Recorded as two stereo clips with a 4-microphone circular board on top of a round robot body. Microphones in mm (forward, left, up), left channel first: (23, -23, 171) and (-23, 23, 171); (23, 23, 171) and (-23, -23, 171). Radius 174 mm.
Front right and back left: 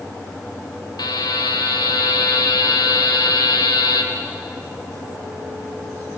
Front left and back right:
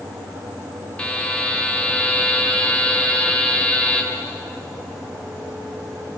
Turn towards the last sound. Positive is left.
turn(degrees=-30)